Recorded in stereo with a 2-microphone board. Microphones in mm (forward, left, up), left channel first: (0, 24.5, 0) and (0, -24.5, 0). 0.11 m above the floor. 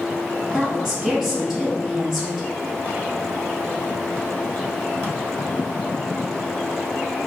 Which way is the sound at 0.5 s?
Centre (ahead or behind).